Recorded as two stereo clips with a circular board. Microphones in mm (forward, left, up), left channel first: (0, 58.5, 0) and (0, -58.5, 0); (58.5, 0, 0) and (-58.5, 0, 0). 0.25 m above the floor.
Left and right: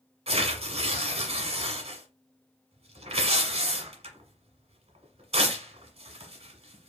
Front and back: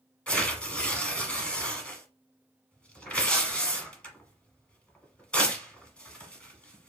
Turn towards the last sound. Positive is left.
turn(degrees=-80)